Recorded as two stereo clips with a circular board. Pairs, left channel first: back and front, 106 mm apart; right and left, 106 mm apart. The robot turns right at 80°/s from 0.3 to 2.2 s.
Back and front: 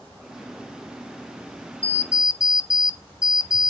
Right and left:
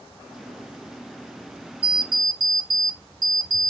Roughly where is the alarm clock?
Left.